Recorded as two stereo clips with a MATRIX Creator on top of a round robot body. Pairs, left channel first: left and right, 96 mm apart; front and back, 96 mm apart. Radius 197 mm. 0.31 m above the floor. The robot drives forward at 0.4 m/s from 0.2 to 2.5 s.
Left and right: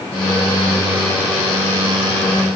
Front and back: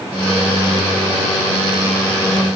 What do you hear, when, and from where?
Only background noise.